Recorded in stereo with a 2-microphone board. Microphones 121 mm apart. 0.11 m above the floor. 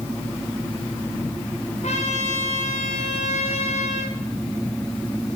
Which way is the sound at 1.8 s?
70° left (ahead or behind).